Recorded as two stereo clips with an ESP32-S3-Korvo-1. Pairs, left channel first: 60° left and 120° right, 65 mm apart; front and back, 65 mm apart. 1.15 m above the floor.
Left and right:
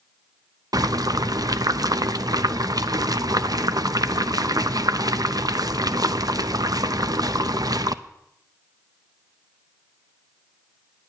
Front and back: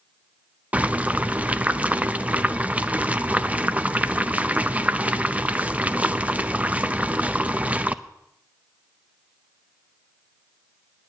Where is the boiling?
110° right, 0.6 m.